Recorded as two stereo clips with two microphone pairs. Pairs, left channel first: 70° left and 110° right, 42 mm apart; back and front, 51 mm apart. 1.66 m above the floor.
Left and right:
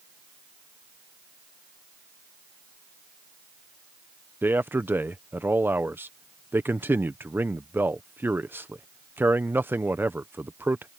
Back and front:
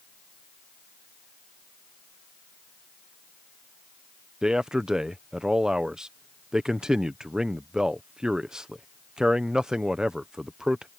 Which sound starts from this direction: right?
A man speaking, at 4.4 s.